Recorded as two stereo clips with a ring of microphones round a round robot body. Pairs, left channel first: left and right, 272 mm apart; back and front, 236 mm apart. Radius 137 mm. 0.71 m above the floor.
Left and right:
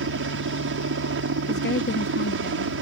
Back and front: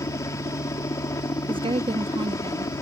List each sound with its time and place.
0.0 s a helicopter: 105° right
1.5 s a woman speaking: 60° left